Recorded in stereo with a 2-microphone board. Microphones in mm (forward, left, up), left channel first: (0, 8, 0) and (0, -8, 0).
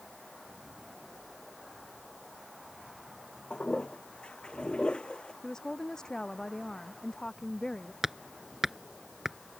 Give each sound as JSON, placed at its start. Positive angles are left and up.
{"t": 3.5, "sound": "a toilet flushing", "side_deg": 75}
{"t": 5.4, "sound": "a woman speaking", "side_deg": 45}
{"t": 8.0, "sound": "hammering", "side_deg": -20}